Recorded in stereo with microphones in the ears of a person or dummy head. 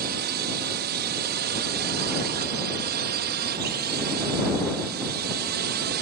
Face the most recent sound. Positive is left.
turn(degrees=-50)  # may be behind; listen again after turning